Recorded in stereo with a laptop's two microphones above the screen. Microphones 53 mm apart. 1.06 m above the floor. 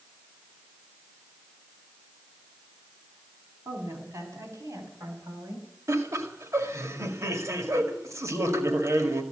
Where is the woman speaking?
75° right (ahead or behind), 7.5 m; by 5.7 s 85° right, 5.5 m.